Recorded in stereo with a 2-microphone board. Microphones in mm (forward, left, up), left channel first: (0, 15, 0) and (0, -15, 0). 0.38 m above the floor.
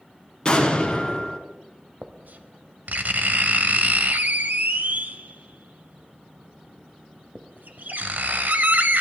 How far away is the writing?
About 1.0 m.